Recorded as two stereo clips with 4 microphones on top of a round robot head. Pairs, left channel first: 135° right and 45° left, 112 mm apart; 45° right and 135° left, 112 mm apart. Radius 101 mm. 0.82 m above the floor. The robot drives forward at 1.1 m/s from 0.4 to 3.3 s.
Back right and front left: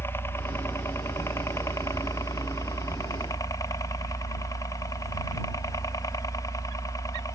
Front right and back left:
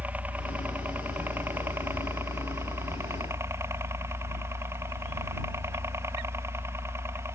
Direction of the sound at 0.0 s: 170° right.